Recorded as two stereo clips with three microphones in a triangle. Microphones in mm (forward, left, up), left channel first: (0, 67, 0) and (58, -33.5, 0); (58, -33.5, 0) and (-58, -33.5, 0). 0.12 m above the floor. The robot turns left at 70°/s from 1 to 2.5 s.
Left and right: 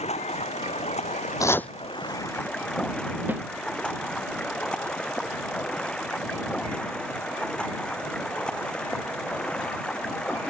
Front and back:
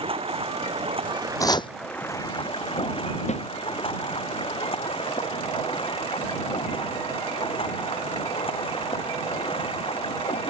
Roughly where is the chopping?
Ahead left.